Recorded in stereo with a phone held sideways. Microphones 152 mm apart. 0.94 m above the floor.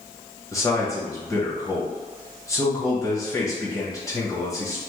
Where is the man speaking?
20° left (ahead or behind), 1.0 m.